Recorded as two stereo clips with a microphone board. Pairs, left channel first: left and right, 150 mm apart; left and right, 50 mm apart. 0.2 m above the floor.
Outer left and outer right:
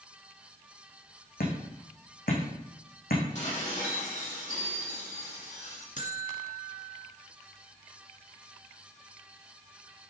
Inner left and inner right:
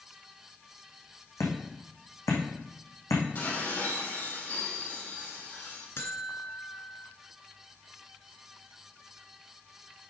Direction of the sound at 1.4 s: 80° left.